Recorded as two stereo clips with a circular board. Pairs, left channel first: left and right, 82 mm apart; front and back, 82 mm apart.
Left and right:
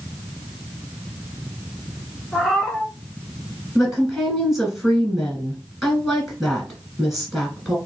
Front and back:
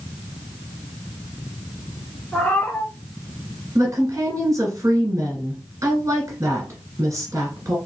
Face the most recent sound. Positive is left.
turn(degrees=180)